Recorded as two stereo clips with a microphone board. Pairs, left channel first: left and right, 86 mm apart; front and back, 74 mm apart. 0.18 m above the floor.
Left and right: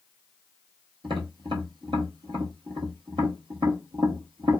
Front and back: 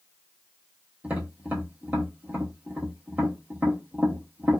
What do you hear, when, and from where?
1.0 s tapping: 110° right, 1.1 m